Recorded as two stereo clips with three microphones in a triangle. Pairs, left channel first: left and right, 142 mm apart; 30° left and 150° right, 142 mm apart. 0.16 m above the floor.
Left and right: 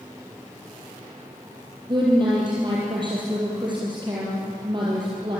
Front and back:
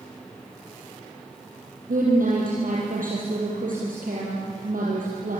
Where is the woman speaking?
145° right, 5.5 m.